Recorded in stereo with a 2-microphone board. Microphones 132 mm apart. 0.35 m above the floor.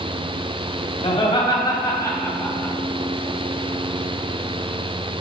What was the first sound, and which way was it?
Laughter, 45° left (ahead or behind).